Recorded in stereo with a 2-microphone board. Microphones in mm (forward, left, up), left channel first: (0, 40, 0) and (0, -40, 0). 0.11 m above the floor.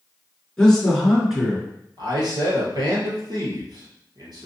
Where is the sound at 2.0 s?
60° right (ahead or behind), 2.5 m.